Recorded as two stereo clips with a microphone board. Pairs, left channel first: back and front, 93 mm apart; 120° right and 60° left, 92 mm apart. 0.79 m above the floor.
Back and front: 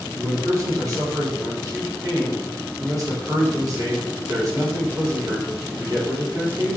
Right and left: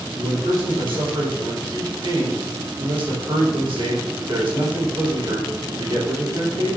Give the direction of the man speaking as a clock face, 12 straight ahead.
10 o'clock.